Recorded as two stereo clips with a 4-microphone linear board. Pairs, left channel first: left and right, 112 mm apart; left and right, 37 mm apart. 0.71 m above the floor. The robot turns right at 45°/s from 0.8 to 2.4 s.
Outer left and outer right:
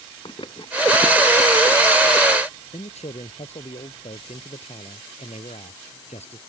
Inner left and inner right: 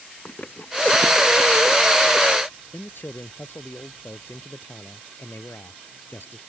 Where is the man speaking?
75° left (ahead or behind).